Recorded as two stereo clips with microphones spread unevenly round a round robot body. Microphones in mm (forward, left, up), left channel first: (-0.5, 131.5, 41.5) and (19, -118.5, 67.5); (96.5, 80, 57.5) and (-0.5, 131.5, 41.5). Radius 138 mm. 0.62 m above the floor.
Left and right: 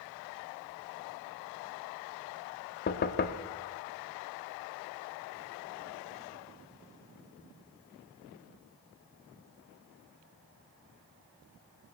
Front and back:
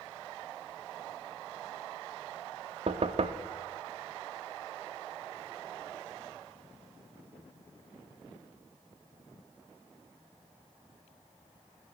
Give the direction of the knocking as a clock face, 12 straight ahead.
7 o'clock.